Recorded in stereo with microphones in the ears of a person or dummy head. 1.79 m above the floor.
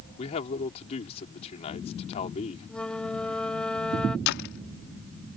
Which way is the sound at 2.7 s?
5° right (ahead or behind).